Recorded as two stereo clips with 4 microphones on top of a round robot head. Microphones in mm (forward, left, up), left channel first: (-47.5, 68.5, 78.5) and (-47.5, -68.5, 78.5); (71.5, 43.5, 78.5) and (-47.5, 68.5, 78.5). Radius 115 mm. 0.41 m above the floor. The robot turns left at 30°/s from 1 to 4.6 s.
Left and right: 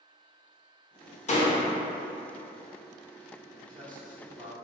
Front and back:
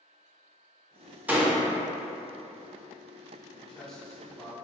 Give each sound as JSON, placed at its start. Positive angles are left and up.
{"t": 1.3, "sound": "a door slam", "azimuth_deg": 90, "distance_m": 0.9}
{"t": 3.6, "sound": "a man speaking", "azimuth_deg": -85, "distance_m": 1.2}